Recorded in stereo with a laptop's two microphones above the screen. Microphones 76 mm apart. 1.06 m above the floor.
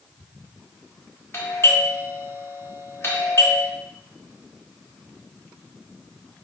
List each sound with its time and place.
1.3 s a doorbell: 35° left (ahead or behind), 0.7 m